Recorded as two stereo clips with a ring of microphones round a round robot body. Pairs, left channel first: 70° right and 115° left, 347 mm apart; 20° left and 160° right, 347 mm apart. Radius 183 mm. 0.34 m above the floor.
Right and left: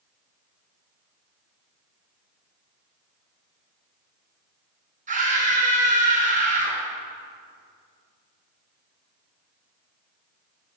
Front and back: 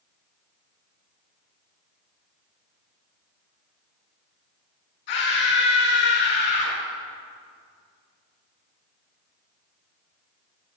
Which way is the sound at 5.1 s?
45° left.